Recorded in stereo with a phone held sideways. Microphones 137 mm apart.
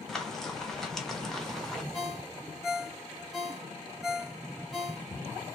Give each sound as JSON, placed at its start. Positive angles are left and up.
{"t": 0.1, "sound": "frying", "side_deg": 5, "distance_m": 0.9}
{"t": 1.9, "sound": "a ringtone", "side_deg": 0, "distance_m": 0.9}